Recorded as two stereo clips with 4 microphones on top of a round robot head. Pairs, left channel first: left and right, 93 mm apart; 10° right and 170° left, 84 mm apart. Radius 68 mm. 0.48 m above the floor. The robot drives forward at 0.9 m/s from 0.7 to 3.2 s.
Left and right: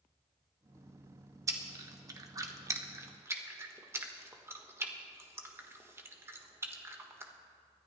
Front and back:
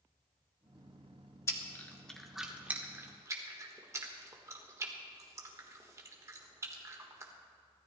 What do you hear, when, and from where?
1.5 s chewing: 50° right, 1.3 m; by 7.3 s 145° right, 1.6 m